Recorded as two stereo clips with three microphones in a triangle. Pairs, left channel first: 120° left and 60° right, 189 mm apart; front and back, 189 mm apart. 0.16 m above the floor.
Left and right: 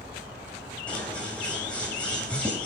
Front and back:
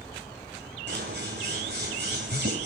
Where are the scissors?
155° right, 9 m.